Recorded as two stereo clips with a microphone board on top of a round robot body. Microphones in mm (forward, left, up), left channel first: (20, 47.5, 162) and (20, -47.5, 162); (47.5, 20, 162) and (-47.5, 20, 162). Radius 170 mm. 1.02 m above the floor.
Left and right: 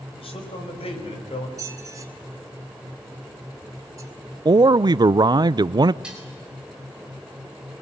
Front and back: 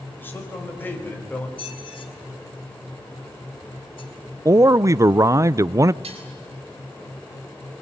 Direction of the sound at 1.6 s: 35° right.